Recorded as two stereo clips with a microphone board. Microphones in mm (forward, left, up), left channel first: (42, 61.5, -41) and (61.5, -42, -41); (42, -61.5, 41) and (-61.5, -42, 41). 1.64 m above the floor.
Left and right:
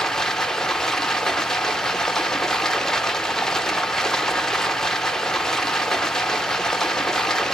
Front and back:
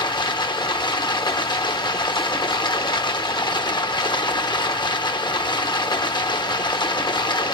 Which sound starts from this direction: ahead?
Running water, at 0.0 s.